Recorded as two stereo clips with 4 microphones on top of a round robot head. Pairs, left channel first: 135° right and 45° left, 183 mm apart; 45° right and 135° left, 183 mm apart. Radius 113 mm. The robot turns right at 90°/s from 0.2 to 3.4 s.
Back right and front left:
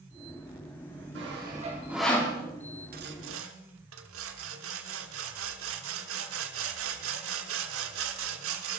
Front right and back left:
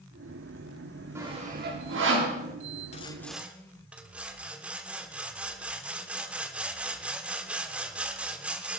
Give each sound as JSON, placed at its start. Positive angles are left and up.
{"t": 1.1, "sound": "sawing", "azimuth_deg": 60, "distance_m": 3.5}
{"t": 2.9, "sound": "sawing", "azimuth_deg": 5, "distance_m": 1.2}